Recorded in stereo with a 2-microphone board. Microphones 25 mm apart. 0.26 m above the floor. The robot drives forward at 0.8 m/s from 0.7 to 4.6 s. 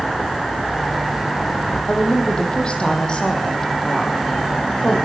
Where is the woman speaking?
40° left (ahead or behind), 7 m; by 5.0 s 30° left (ahead or behind), 9 m.